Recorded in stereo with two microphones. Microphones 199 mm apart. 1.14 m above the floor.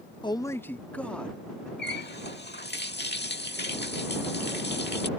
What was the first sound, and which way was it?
A man speaking, 25° left (ahead or behind).